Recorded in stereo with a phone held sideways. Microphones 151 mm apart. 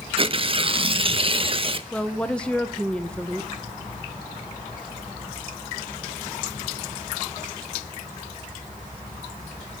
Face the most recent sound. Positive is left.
turn(degrees=5)  # may be behind; listen again after turning